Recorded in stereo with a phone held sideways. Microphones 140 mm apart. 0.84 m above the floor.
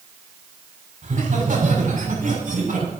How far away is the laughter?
About 5 m.